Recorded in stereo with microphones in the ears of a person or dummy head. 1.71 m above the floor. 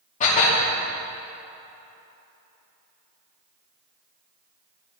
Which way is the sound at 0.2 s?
40° left (ahead or behind).